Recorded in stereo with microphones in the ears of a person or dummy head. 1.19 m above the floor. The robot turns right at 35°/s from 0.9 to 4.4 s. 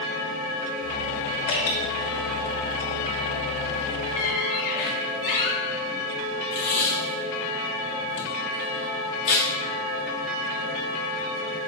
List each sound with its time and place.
1.5 s dripping: 60° left (ahead or behind), 1.9 m; by 1.8 s 65° left (ahead or behind), 1.9 m
4.2 s a squeak: 35° left (ahead or behind), 0.9 m; by 5.6 s 45° left (ahead or behind), 0.9 m
6.5 s tape being pulled: 35° left (ahead or behind), 1.2 m